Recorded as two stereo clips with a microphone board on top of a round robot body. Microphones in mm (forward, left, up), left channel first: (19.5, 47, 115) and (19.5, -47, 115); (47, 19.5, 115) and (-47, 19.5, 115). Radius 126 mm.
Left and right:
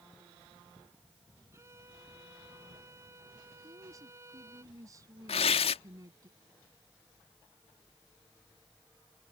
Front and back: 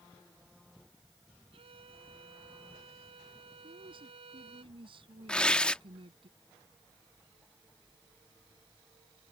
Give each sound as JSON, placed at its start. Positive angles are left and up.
{"t": 1.5, "sound": "a violin", "azimuth_deg": -155}
{"t": 3.6, "sound": "a woman speaking", "azimuth_deg": -145}
{"t": 5.3, "sound": "tearing paper", "azimuth_deg": 80}